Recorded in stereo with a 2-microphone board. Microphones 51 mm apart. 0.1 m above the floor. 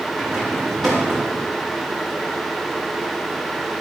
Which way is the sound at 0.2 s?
Centre (ahead or behind).